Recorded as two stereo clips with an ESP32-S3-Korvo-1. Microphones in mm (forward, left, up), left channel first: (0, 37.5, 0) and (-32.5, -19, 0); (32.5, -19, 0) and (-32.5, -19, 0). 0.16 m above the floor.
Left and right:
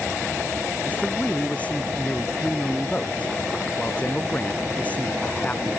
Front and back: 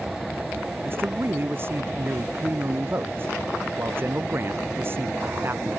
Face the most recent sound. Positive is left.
turn(degrees=125)